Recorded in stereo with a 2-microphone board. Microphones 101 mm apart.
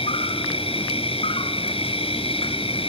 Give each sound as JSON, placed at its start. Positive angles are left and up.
{"t": 0.0, "sound": "an insect", "side_deg": 70, "distance_m": 1.3}